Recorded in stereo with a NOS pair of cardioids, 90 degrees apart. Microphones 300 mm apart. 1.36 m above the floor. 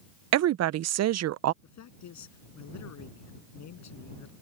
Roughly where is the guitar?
I don't hear a guitar.